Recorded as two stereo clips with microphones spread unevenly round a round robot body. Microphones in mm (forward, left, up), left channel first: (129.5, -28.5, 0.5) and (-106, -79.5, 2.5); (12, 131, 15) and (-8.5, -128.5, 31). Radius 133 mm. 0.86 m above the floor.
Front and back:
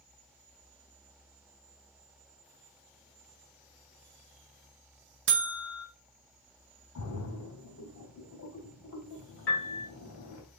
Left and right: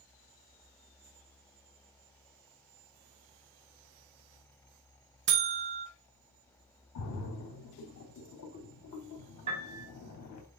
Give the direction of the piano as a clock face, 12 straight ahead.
1 o'clock.